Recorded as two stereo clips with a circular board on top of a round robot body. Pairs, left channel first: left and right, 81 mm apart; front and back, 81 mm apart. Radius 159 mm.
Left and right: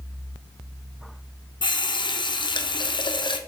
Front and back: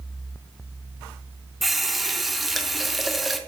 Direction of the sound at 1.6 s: 90° left.